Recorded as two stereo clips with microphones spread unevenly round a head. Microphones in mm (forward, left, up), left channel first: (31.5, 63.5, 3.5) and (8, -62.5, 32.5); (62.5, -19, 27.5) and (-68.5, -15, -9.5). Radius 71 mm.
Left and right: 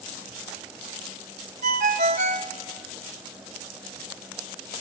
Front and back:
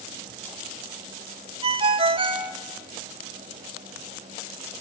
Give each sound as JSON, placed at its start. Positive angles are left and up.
{"t": 1.6, "sound": "a ringtone", "azimuth_deg": -125, "distance_m": 1.6}